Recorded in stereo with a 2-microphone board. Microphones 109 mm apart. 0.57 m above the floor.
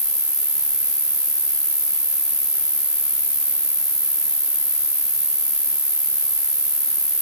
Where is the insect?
40° right (ahead or behind), 4 m.